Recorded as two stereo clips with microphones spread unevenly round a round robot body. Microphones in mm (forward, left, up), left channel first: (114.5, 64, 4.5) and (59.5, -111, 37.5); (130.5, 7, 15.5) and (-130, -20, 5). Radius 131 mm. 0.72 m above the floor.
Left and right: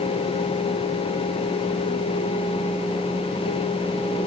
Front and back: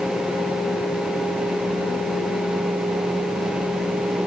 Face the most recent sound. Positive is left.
No sound to turn to.